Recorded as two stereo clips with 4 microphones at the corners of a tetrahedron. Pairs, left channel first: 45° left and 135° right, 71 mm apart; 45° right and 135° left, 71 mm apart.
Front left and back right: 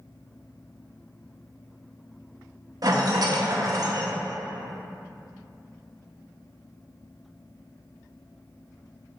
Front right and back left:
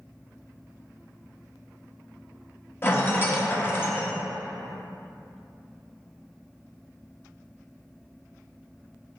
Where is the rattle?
105° right, 1.0 m.